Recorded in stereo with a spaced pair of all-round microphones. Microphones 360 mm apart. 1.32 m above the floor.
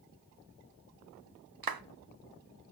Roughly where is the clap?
Right.